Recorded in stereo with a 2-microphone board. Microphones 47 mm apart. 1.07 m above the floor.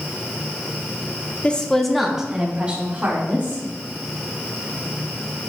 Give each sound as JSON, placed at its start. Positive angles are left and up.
{"t": 1.4, "sound": "a woman speaking", "side_deg": 25, "distance_m": 1.1}